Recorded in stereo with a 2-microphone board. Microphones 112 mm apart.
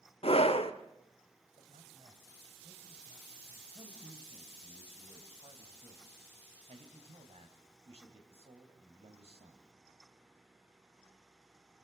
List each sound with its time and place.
0.2 s a scream: 60° left (ahead or behind), 1.6 m
1.6 s a man speaking: 65° right (ahead or behind), 3 m
3.7 s a man speaking: 60° right (ahead or behind), 3.5 m